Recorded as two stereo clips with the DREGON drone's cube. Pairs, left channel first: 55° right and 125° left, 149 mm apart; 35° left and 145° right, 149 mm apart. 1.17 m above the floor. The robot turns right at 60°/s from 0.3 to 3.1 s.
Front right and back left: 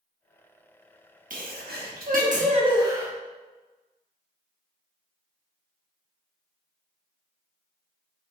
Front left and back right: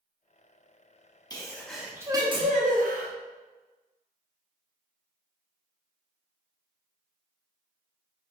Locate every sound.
1.3 s a sneeze: 95° left, 1.0 m; by 3.1 s 155° right, 1.0 m